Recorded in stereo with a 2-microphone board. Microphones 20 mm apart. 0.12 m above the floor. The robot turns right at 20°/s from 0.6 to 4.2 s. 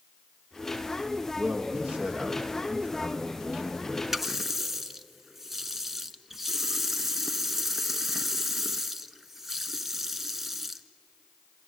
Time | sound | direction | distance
1.4 | a man speaking | 85° right | 5.5 m
4.1 | a running tap | 15° right (ahead or behind) | 0.9 m